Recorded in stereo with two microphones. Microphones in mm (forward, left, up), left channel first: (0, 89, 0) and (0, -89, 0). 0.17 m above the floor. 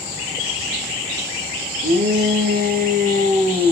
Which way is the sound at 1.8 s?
70° right (ahead or behind).